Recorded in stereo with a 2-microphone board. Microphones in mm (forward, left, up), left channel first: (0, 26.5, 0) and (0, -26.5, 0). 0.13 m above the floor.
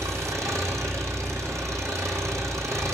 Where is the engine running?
75° right (ahead or behind), 1.9 m.